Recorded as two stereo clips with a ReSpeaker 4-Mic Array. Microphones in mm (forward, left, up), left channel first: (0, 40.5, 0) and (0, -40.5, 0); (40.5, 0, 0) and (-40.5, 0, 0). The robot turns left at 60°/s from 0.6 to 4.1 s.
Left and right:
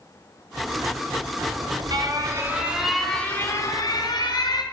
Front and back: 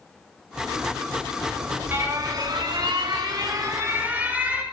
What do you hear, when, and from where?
1.4 s an alarm: 90° right, 5 m; by 4.6 s 110° left, 5 m